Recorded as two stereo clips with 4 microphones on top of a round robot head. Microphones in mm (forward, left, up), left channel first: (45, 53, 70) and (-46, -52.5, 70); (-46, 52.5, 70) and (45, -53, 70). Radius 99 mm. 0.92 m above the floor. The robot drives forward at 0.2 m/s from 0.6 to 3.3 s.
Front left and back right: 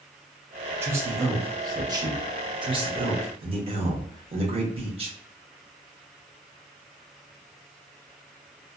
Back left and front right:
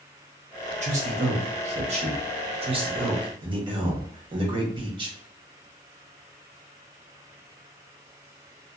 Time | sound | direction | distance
0.8 | a man speaking | 60° right | 1.1 m